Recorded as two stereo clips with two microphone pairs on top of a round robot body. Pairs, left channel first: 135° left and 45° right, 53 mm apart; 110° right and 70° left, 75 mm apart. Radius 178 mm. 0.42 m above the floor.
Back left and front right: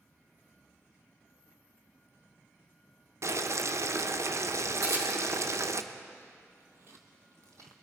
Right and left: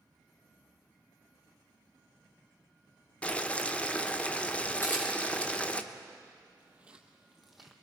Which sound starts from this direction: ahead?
Footsteps, at 6.6 s.